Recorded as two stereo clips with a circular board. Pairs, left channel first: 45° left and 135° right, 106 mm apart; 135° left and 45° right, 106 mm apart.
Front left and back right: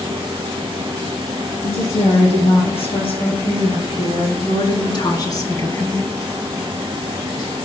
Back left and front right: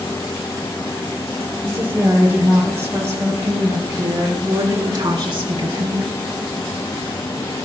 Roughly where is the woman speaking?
Ahead left.